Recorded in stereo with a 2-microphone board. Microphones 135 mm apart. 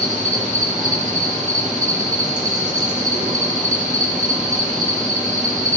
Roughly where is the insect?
Right.